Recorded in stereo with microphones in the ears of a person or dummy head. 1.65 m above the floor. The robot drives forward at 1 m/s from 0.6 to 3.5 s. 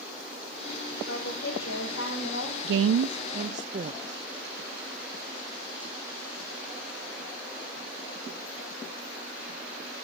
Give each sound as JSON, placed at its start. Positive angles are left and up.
{"t": 1.1, "sound": "a woman speaking", "side_deg": 75, "distance_m": 7.5}
{"t": 2.6, "sound": "a woman speaking", "side_deg": -60, "distance_m": 0.5}